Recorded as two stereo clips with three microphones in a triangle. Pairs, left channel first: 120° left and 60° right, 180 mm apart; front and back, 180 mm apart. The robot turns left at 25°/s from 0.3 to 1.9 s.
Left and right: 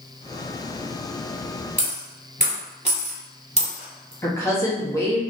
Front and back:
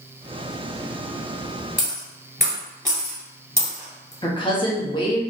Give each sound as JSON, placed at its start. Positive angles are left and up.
{"t": 1.8, "sound": "a dropped coin", "azimuth_deg": -100, "distance_m": 1.7}
{"t": 4.2, "sound": "a woman speaking", "azimuth_deg": 55, "distance_m": 0.9}